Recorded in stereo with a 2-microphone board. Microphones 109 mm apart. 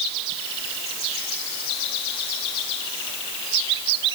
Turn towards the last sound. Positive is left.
No sound to turn to.